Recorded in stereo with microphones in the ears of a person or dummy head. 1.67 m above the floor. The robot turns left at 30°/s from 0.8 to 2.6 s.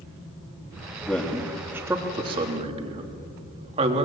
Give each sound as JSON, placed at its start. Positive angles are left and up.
{"t": 1.0, "sound": "a man speaking", "side_deg": 10, "distance_m": 2.5}